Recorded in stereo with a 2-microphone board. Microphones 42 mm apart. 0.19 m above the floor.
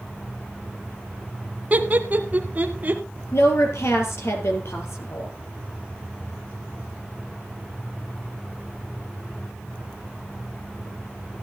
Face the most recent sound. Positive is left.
turn(degrees=75)  # may be behind; listen again after turning